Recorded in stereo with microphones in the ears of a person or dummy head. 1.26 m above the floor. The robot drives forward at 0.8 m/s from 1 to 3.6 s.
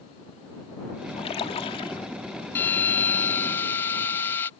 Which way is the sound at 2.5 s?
10° left (ahead or behind).